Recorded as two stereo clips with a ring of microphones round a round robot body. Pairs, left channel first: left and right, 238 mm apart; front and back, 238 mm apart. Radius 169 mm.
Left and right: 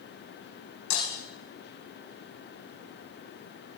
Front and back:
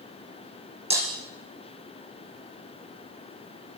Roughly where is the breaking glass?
Behind left.